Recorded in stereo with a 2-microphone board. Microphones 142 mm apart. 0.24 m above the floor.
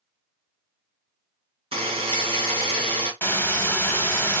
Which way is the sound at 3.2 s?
15° left (ahead or behind).